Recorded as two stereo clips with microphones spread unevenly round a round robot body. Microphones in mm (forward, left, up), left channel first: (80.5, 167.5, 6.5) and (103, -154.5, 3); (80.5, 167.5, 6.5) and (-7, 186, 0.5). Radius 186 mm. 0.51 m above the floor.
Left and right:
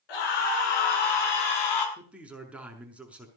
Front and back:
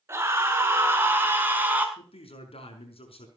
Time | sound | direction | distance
0.1 | a scream | 105° left | 7.5 m
2.0 | a man speaking | straight ahead | 6 m